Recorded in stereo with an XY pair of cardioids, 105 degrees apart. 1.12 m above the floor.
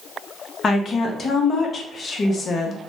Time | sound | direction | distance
0.6 | a woman speaking | 45° left | 0.7 m